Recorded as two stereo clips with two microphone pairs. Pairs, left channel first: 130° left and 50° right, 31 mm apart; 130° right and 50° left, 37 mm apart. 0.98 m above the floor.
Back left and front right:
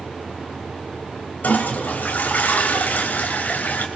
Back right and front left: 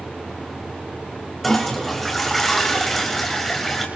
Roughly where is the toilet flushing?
Behind left.